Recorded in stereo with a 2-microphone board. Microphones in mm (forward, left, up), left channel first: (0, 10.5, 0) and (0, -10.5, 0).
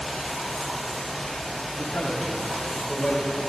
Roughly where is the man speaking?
Left.